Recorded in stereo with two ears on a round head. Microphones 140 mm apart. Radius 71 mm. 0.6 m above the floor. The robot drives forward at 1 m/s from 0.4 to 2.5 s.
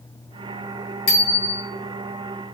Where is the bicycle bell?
60° left (ahead or behind), 6.5 m; by 1.6 s 65° left (ahead or behind), 6.5 m.